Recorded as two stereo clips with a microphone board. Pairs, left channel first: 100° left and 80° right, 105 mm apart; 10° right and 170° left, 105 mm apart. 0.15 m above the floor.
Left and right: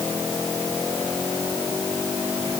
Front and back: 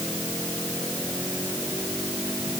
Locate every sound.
Only background noise.